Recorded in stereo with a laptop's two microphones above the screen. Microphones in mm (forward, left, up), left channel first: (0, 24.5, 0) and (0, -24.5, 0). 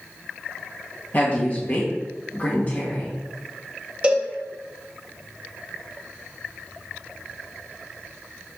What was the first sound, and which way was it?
A woman speaking, 40° left (ahead or behind).